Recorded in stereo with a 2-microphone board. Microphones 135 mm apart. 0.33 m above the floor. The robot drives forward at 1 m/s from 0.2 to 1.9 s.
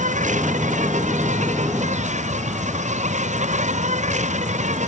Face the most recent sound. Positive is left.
turn(degrees=-65)  # may be behind; listen again after turning